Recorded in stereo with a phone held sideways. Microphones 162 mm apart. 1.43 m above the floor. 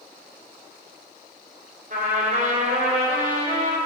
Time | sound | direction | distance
1.9 | a trumpet | 65° right (ahead or behind) | 2.5 m